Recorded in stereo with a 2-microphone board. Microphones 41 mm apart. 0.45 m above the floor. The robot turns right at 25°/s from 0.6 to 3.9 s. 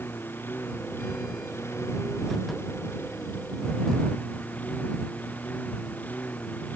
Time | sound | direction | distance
0.0 | a lawn mower | 55° left | ?